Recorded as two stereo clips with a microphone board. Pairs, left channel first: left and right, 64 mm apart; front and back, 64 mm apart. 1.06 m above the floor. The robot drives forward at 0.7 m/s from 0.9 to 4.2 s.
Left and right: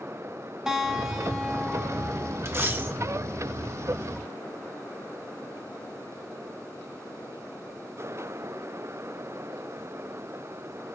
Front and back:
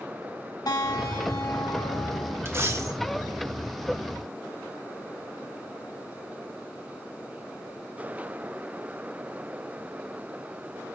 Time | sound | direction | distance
0.7 | a guitar | 10° right | 2 m
2.5 | a dropped coin | 135° right | 1.0 m